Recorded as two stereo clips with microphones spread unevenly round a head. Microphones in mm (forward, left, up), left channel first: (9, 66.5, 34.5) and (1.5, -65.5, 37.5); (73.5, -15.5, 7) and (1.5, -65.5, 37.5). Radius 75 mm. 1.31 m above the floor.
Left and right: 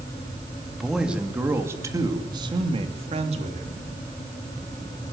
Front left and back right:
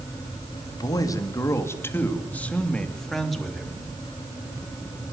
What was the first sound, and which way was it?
A man speaking, 5° right.